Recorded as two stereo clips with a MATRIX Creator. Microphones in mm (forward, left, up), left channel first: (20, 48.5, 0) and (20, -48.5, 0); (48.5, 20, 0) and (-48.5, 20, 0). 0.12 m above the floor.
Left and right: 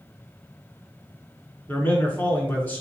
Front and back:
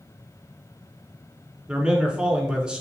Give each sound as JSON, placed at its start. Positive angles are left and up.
{"t": 1.7, "sound": "a man speaking", "azimuth_deg": 110, "distance_m": 1.4}